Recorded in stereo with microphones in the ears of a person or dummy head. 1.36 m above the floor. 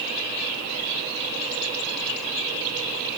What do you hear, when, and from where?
Only background noise.